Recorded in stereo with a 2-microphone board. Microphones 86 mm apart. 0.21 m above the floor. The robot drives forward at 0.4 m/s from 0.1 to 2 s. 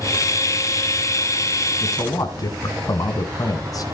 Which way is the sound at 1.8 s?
45° left (ahead or behind).